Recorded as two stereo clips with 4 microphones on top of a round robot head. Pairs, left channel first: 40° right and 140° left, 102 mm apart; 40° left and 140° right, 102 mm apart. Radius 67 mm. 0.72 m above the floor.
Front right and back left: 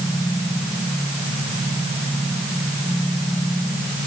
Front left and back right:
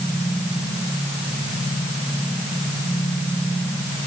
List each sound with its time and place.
Only background noise.